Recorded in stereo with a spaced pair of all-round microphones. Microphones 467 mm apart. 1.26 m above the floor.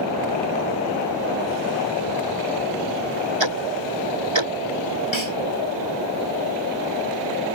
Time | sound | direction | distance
3.4 | ticking | 70° right (ahead or behind) | ?
5.1 | a snare drum | 75° left (ahead or behind) | ?